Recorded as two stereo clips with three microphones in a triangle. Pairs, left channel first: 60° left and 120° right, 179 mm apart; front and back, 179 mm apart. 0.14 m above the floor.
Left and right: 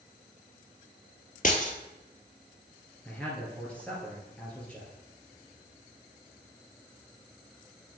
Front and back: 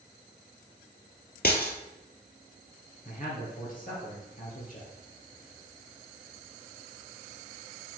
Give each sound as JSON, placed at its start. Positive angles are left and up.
{"t": 1.4, "sound": "breaking glass", "azimuth_deg": 20, "distance_m": 0.9}
{"t": 3.0, "sound": "a man speaking", "azimuth_deg": -20, "distance_m": 2.5}